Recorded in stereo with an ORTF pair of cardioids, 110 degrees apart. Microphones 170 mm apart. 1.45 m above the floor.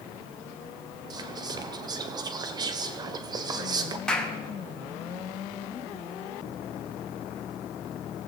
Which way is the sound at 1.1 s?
25° right.